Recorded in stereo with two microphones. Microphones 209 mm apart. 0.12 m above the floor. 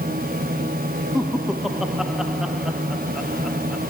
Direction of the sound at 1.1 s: Centre (ahead or behind).